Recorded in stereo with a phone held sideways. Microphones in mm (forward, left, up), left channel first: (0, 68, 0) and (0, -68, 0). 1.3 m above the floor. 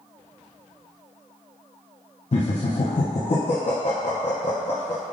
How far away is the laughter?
About 0.5 m.